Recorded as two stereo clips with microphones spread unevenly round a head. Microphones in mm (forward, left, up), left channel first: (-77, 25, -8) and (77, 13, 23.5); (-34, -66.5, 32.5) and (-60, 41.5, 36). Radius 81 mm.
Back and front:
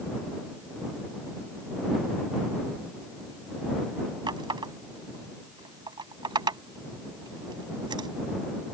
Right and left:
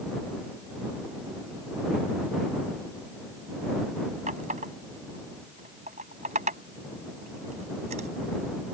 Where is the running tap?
55° left.